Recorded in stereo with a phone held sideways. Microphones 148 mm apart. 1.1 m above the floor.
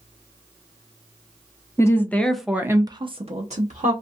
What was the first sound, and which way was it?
A woman speaking, 20° left (ahead or behind).